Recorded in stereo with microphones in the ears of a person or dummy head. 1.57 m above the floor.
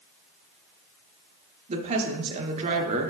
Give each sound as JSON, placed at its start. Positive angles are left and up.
{"t": 1.7, "sound": "a woman speaking", "side_deg": -35, "distance_m": 1.2}